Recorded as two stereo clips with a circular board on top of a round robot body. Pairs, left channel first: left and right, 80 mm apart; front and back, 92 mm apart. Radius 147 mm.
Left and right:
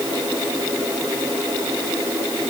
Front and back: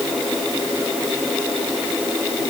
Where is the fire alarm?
I don't hear a fire alarm.